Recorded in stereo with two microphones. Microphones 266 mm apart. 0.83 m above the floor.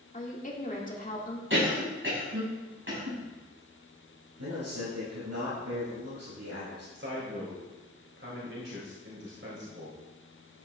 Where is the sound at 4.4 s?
80° right, 5 m.